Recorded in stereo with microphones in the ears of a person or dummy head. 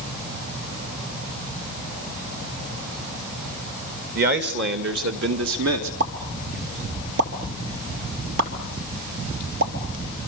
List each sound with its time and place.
4.2 s a man speaking: 50° right (ahead or behind), 2.5 m; by 5.9 s 80° right, 2.5 m
6.0 s a pop: 65° right (ahead or behind), 3 m